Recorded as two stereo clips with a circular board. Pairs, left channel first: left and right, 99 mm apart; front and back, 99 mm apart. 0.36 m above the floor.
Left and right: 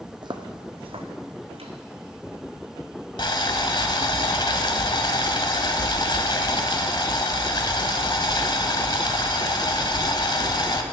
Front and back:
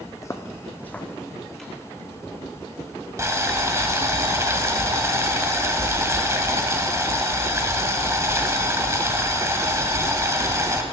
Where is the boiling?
120° left, 1.1 m.